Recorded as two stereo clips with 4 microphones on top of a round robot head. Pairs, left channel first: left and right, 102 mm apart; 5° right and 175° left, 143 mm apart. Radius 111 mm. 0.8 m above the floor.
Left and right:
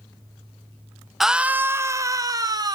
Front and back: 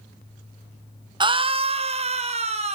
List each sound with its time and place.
1.2 s a scream: 175° right, 0.9 m; by 2.8 s 140° right, 1.9 m